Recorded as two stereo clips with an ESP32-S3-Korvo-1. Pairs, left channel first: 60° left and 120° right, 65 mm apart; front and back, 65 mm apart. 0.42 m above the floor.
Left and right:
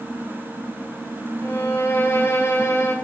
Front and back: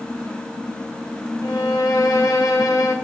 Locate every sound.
1.4 s a violin: 15° left, 1.0 m